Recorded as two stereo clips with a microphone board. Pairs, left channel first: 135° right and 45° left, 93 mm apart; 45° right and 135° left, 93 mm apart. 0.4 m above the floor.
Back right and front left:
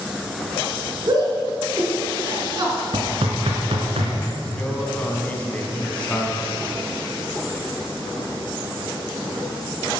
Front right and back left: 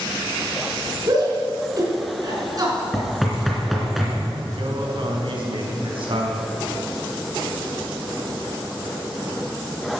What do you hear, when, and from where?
1.1 s a shout: 90° left, 4 m
2.9 s knocking: 45° left, 3 m
4.6 s a man speaking: 150° left, 3.5 m